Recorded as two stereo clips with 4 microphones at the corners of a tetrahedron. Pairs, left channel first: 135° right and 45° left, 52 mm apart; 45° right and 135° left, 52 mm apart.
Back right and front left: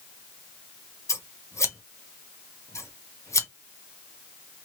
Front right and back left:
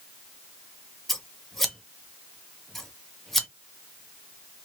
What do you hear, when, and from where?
1.1 s scissors: 130° right, 0.7 m